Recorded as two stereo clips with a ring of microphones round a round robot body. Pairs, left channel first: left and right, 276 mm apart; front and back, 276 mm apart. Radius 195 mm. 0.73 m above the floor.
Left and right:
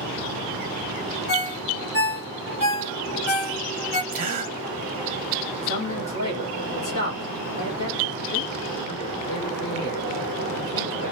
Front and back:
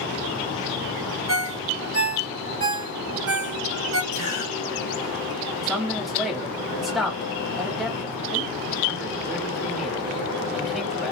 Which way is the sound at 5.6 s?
90° left.